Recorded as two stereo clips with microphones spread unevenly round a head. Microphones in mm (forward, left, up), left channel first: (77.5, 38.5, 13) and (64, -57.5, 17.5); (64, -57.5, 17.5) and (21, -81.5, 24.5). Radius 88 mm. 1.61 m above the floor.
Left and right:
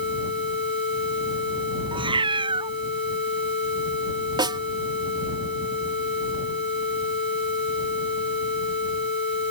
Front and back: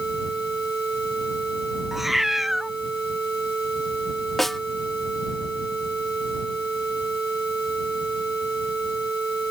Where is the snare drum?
60° right.